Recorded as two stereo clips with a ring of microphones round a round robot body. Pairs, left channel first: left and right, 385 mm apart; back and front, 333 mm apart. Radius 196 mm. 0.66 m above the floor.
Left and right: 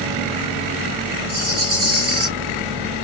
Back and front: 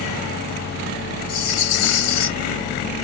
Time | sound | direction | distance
1.3 | a rattle | 145° right | 2.5 m